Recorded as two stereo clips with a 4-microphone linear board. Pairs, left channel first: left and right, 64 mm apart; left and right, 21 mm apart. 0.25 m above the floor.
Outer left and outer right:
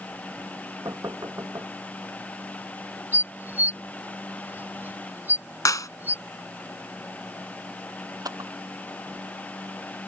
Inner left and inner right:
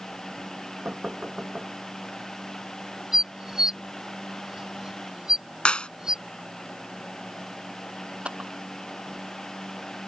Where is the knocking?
55° right (ahead or behind).